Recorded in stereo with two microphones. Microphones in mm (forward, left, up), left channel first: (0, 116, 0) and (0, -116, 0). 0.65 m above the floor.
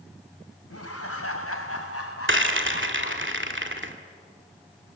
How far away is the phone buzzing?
No phone buzzing in this recording.